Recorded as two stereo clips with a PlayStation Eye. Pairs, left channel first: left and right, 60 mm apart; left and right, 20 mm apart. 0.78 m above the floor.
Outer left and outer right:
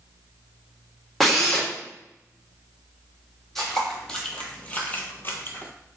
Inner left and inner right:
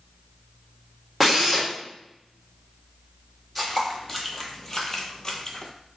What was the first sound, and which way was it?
A drill, 5° left (ahead or behind).